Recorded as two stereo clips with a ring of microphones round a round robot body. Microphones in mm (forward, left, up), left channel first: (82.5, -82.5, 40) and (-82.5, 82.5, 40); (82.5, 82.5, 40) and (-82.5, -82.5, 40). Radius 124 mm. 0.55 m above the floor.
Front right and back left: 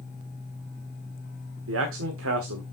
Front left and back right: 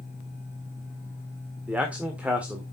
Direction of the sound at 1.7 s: 140° left.